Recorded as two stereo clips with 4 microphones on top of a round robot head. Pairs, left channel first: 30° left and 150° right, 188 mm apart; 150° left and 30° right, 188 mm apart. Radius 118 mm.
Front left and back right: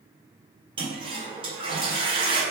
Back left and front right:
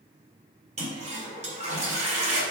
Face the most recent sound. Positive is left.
turn(degrees=-85)